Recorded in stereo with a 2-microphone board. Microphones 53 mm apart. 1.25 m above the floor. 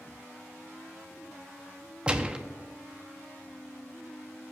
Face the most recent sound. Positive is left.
turn(degrees=-20)  # may be behind; listen again after turning